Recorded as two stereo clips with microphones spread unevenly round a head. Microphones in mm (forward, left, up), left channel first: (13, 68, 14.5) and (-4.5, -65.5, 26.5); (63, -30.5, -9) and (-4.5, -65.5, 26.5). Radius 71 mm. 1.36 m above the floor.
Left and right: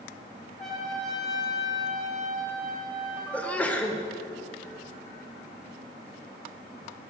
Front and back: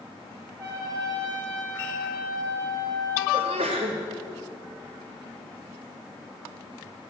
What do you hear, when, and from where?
0.6 s a trumpet: 150° left, 2.5 m
3.3 s a sneeze: 165° left, 1.0 m